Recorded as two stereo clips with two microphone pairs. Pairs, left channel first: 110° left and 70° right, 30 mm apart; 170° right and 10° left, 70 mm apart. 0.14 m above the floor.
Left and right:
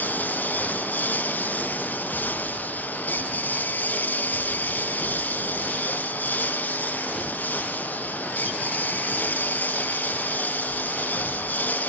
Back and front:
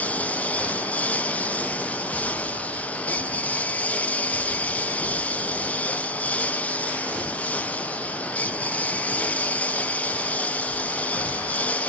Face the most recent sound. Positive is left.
turn(degrees=120)